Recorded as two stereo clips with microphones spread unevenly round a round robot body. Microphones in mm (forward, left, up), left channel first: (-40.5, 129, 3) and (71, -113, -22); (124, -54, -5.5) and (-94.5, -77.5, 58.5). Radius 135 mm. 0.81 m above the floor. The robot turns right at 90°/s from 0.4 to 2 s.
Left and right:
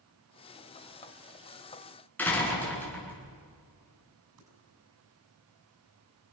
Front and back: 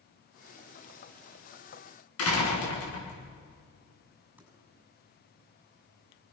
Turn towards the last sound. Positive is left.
turn(degrees=-90)